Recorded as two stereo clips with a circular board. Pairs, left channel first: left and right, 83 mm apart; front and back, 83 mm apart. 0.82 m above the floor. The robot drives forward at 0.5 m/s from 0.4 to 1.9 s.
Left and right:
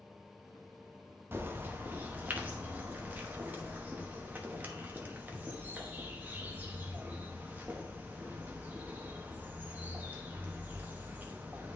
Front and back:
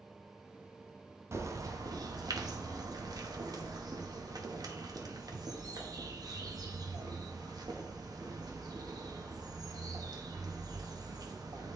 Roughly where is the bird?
Behind right.